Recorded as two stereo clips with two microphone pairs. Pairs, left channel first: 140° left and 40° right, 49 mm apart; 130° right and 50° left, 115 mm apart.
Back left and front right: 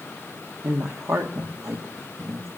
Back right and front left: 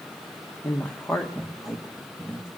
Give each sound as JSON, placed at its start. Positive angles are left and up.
{"t": 0.6, "sound": "a woman speaking", "azimuth_deg": -55, "distance_m": 1.1}